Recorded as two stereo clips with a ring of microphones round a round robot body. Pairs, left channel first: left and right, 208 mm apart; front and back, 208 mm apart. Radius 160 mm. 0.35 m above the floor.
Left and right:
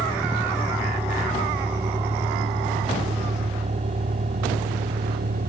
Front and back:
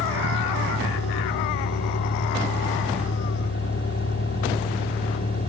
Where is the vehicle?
5° right; by 5.5 s 45° right.